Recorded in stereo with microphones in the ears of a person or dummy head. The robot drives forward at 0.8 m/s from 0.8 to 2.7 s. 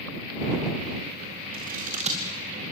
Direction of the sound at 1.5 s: 45° right (ahead or behind).